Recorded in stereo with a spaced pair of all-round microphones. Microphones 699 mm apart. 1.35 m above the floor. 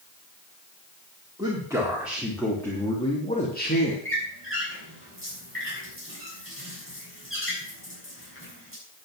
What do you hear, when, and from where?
1.4 s a man speaking: 5° right (ahead or behind), 3.5 m; by 4.0 s 15° left (ahead or behind), 2.5 m
4.0 s a squeak: 15° left (ahead or behind), 6.5 m